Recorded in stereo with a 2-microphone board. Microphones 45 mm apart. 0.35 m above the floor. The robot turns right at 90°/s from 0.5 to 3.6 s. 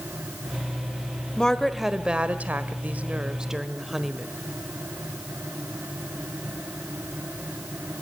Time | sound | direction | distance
1.4 | a woman speaking | 150° left | 1.4 m